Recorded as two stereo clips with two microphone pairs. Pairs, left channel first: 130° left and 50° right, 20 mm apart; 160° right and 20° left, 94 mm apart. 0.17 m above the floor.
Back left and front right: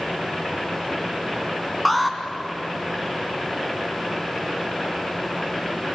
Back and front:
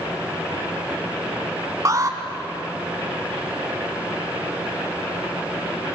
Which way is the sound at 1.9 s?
30° left.